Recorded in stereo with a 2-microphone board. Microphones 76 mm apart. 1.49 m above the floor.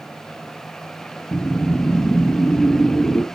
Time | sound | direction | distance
1.3 | a whoosh | 30° left (ahead or behind) | 2.5 m